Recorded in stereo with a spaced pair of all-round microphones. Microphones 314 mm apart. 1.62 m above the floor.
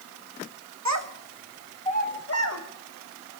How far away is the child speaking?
About 1.4 m.